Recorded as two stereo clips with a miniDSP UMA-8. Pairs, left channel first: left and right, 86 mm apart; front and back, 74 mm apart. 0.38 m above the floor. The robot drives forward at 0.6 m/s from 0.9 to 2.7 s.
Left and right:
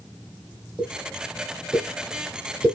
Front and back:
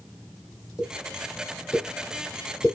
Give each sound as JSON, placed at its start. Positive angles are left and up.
{"t": 0.8, "sound": "a pop", "azimuth_deg": -20, "distance_m": 1.7}